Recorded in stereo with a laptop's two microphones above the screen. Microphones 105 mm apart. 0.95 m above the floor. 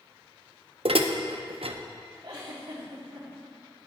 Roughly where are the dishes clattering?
Right.